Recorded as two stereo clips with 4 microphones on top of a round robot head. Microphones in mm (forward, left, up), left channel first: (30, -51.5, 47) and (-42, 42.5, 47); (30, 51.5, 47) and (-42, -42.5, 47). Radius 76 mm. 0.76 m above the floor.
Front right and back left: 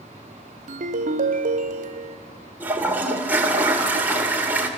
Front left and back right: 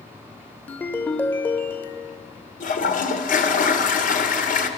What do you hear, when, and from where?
0.7 s a ringtone: 130° left, 1.1 m
2.6 s a toilet flushing: 50° left, 2 m